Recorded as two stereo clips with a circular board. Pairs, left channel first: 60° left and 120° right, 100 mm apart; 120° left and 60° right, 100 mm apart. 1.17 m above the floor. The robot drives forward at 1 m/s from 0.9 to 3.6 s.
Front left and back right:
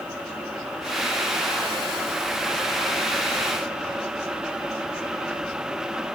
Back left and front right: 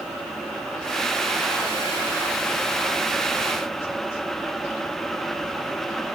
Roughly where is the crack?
I don't hear a crack.